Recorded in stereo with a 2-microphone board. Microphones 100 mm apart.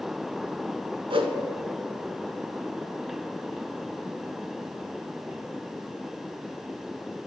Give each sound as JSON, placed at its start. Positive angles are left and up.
{"t": 1.1, "sound": "a whoosh", "side_deg": -60, "distance_m": 0.7}